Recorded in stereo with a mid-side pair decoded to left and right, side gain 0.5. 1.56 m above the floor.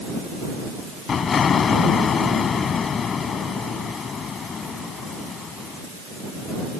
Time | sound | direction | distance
1.1 | an explosion | 45° left | ?